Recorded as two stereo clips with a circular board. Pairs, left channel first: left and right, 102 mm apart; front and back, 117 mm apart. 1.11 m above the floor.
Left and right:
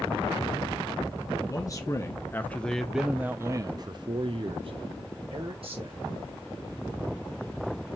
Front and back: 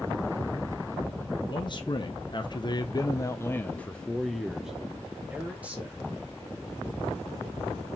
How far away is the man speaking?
About 1.1 m.